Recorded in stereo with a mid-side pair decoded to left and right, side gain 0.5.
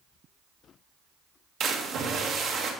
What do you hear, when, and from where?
1.6 s a splash: 60° right, 1.2 m